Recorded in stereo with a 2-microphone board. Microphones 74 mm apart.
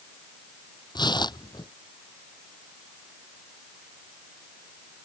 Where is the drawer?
No drawer in this recording.